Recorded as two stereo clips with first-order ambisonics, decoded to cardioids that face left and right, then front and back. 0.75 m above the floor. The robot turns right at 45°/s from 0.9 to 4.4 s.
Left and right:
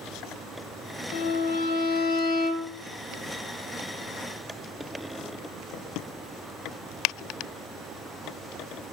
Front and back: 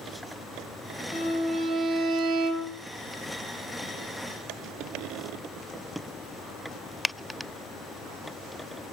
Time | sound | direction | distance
1.1 | a violin | 80° left | 0.9 m